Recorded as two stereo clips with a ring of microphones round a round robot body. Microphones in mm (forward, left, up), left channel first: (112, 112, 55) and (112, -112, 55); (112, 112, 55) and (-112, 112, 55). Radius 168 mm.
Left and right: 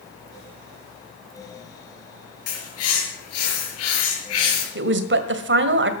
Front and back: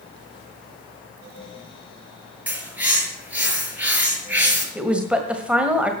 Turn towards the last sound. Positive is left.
turn(degrees=-95)